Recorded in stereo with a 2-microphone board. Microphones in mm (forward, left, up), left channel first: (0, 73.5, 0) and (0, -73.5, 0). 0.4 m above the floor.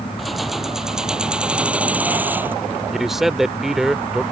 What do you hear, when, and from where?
0.2 s keys jangling: centre (ahead or behind); by 2.5 s 15° right (ahead or behind)
2.9 s a man speaking: centre (ahead or behind)